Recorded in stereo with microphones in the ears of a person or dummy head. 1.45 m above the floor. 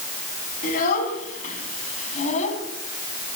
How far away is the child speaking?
About 7.5 m.